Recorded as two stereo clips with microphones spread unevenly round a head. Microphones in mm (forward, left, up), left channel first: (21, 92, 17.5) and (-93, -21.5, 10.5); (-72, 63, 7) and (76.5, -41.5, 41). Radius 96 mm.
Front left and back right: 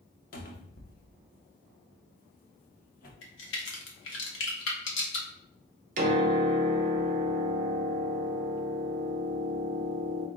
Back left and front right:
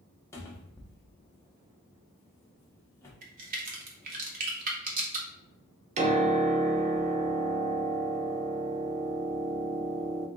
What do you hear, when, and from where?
0.3 s a cupboard door: 65° left, 0.8 m
3.2 s a crack: 10° left, 0.8 m
6.0 s a piano: 95° right, 0.5 m